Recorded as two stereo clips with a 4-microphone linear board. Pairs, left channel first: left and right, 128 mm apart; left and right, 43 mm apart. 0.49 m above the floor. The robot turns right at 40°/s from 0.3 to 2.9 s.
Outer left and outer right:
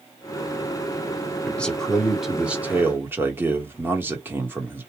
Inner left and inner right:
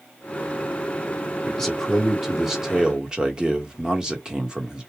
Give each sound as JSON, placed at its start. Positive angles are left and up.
{"t": 1.4, "sound": "a man speaking", "side_deg": 10, "distance_m": 1.5}